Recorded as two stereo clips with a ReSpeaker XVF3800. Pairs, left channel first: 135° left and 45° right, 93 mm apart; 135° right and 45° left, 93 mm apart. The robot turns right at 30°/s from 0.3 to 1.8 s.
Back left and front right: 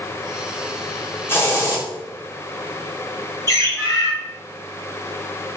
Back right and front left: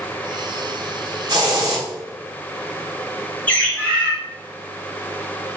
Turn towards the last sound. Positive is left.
turn(degrees=165)